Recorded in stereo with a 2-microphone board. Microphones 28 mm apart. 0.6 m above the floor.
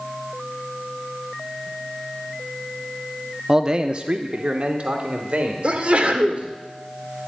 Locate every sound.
3.5 s a man speaking: 20° right (ahead or behind), 0.6 m; by 6.6 s 55° right (ahead or behind), 2.5 m
5.6 s a sneeze: 50° right (ahead or behind), 1.9 m